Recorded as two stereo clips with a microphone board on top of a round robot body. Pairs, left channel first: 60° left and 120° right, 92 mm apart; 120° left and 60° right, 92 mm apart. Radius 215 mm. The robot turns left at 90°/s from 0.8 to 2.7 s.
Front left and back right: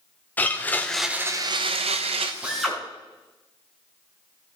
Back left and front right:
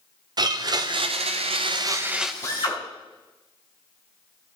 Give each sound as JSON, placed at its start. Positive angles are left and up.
{"t": 0.4, "sound": "a blender", "azimuth_deg": -15, "distance_m": 0.6}
{"t": 2.4, "sound": "a drill", "azimuth_deg": 165, "distance_m": 4.0}